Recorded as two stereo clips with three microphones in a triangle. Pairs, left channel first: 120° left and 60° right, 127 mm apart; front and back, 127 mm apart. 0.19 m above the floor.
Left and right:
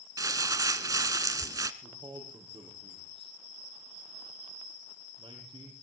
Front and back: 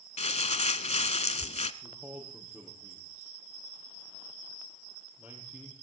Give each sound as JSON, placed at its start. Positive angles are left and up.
{"t": 0.2, "sound": "crumpling", "azimuth_deg": -5, "distance_m": 0.8}
{"t": 1.8, "sound": "a man speaking", "azimuth_deg": -100, "distance_m": 5.5}